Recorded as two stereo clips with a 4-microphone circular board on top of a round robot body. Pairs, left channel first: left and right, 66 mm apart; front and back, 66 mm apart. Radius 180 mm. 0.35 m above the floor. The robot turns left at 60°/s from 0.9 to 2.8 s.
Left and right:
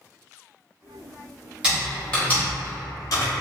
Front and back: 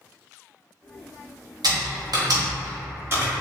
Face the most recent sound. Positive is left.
turn(degrees=125)